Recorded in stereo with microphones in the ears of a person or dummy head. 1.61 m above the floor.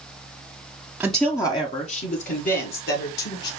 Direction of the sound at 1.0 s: 10° right (ahead or behind).